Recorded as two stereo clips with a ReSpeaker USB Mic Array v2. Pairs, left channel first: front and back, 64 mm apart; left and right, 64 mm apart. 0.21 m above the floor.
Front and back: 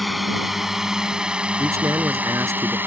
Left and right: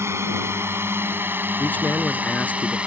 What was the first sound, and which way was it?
A drone, 90° right.